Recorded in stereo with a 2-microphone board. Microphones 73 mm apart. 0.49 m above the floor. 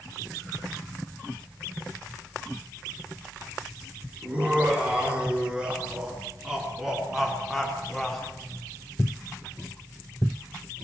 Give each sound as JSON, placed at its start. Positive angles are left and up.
{"t": 4.2, "sound": "laughter", "side_deg": -15, "distance_m": 6.5}